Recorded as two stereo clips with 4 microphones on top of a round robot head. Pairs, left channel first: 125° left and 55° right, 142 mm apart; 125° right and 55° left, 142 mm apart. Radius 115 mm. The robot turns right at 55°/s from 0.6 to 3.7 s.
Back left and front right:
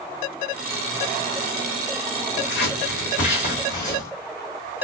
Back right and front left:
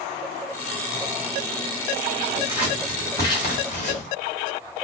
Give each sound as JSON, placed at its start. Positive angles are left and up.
{"t": 2.4, "sound": "scissors", "azimuth_deg": 120, "distance_m": 2.0}